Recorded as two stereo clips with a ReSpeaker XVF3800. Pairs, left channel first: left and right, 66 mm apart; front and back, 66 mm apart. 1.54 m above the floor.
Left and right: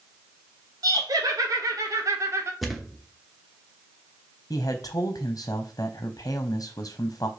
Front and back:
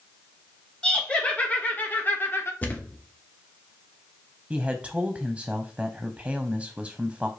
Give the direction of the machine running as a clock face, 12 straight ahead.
I don't hear a machine running.